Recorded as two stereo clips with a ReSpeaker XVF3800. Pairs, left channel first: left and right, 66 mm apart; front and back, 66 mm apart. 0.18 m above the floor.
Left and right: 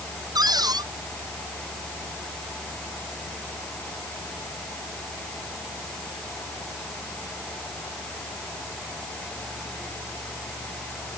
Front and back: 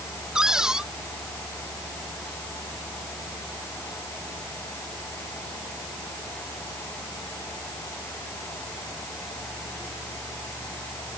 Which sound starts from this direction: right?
A cupboard door, at 0.3 s.